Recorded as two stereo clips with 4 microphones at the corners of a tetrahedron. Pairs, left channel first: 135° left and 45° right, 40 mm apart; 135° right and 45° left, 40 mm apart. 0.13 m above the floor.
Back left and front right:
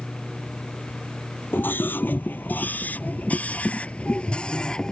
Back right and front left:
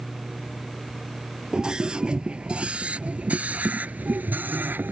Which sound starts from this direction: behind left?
A scream, at 1.5 s.